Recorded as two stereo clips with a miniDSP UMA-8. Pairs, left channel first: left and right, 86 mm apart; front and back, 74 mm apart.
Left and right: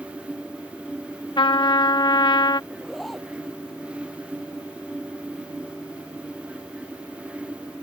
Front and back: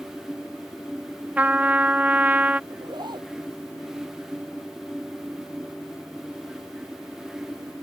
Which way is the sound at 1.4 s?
110° left.